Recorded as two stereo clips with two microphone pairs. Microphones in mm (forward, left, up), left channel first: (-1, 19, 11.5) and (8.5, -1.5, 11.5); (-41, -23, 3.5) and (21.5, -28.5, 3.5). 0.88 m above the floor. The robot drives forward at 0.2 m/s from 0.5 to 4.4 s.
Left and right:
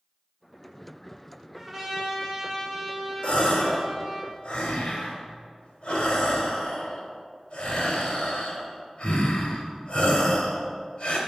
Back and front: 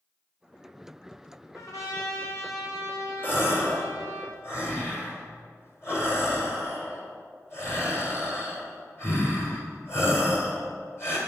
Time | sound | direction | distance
1.5 | a trumpet | 155° right | 2 m
3.2 | a gasp | 125° left | 1.8 m